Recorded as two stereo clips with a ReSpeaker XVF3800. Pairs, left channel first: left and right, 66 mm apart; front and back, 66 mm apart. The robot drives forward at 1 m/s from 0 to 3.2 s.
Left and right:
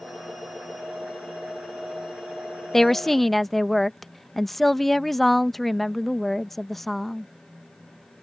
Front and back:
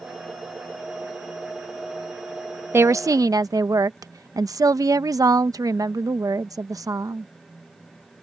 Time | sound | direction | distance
2.7 | a woman speaking | 175° left | ?